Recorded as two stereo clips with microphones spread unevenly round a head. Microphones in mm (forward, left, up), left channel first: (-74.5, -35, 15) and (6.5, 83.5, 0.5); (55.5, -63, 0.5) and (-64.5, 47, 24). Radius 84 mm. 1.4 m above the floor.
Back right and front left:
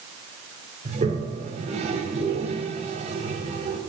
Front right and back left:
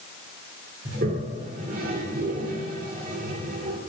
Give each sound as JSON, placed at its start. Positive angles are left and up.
{"t": 0.8, "sound": "a toilet flushing", "azimuth_deg": 100, "distance_m": 2.5}